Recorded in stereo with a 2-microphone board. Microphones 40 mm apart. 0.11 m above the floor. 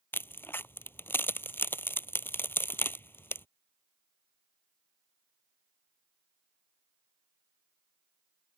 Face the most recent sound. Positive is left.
turn(degrees=65)  # may be behind; listen again after turning